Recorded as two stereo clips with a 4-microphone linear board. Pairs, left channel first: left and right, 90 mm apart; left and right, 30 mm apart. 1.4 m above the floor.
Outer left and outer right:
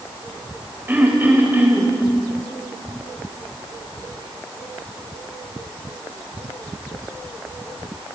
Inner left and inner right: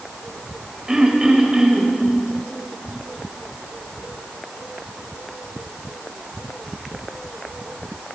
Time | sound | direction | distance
0.9 | throat clearing | 20° right (ahead or behind) | 3.5 m